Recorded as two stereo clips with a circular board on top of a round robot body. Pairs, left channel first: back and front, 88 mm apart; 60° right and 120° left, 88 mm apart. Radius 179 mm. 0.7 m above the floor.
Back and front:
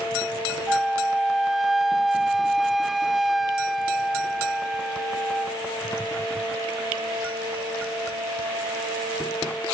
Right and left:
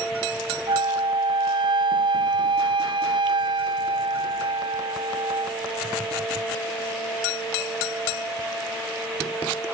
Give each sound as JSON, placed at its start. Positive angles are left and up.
{"t": 0.7, "sound": "a flute", "azimuth_deg": 90, "distance_m": 0.6}